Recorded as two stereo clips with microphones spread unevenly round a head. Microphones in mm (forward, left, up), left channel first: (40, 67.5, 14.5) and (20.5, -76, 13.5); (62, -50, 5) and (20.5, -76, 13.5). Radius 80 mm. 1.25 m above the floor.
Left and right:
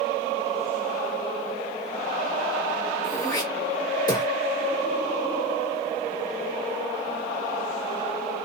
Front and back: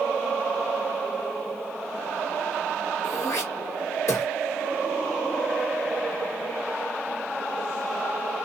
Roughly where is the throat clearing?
Ahead.